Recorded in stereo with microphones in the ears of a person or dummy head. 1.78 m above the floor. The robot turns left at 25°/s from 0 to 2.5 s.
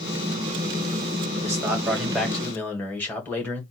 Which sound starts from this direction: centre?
A man speaking, at 1.4 s.